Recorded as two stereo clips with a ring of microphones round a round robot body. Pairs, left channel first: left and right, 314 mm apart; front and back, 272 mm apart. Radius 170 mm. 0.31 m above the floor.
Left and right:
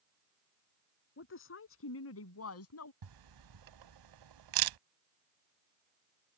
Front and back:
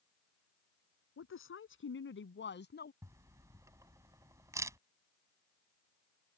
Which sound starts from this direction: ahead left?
A woman speaking, at 1.2 s.